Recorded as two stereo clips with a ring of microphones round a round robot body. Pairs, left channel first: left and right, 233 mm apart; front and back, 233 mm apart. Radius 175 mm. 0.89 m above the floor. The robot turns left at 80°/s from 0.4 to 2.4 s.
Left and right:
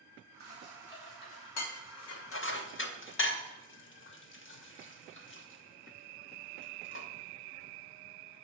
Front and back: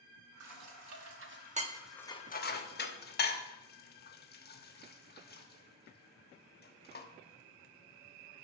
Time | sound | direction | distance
0.4 | dishes clattering | 150° right | 1.1 m